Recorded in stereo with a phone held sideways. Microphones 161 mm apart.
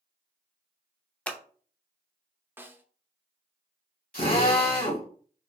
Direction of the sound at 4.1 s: 65° left (ahead or behind).